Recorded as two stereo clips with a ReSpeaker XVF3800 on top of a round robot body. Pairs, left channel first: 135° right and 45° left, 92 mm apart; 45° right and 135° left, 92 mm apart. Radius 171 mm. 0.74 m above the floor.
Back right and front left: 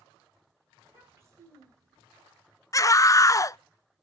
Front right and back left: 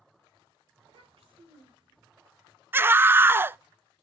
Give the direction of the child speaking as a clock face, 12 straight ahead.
8 o'clock.